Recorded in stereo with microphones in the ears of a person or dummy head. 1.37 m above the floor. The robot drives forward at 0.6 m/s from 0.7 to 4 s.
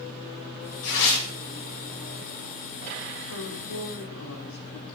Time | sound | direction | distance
0.8 | tearing paper | 75° left (ahead or behind) | 8 m
3.3 | a woman speaking | 75° left (ahead or behind) | 6 m